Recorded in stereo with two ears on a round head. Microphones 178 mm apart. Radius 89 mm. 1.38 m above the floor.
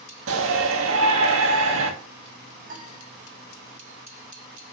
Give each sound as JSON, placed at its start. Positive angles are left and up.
{"t": 0.3, "sound": "a shout", "side_deg": -70, "distance_m": 2.0}
{"t": 2.7, "sound": "a piano", "side_deg": -45, "distance_m": 1.9}